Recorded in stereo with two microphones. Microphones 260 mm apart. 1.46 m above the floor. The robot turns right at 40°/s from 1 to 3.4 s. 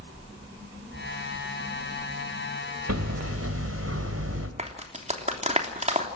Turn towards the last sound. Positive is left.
turn(degrees=-25)  # may be behind; listen again after turning